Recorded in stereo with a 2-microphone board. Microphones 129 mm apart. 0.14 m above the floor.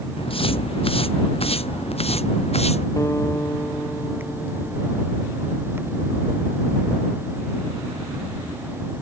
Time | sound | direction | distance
0.2 | footsteps | 45° left (ahead or behind) | ?
3.0 | a guitar | 20° left (ahead or behind) | ?